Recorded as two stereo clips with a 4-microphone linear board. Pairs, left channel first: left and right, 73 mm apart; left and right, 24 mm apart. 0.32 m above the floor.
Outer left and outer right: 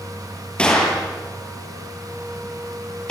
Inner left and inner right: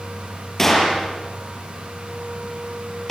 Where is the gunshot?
10° left (ahead or behind), 7.5 m.